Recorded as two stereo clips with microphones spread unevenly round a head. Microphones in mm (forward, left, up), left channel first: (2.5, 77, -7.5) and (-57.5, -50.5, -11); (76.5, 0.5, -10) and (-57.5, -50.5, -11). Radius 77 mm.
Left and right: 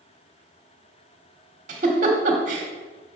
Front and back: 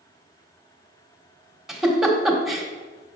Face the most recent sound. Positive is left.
turn(degrees=-70)